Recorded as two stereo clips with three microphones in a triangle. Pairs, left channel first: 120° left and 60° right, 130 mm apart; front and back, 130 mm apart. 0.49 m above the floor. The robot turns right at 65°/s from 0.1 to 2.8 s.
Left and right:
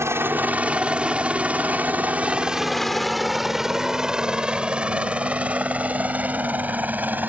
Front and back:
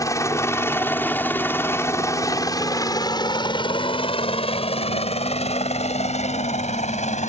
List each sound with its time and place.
0.0 s a helicopter: 20° right; by 7.3 s 15° left